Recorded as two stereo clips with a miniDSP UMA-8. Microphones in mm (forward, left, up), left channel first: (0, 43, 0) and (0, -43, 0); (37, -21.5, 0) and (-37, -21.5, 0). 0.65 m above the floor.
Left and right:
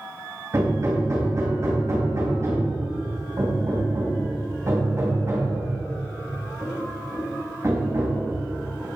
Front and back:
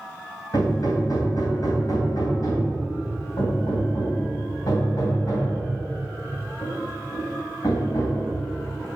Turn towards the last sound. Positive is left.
turn(degrees=-35)